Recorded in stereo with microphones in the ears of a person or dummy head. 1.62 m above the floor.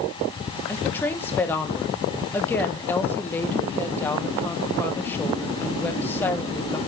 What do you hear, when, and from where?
0.7 s a woman speaking: 10° left (ahead or behind), 1.3 m